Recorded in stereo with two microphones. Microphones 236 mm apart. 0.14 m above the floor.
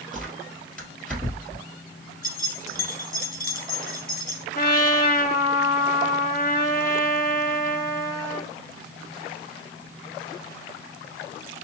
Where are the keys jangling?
40° left (ahead or behind), 1.1 m.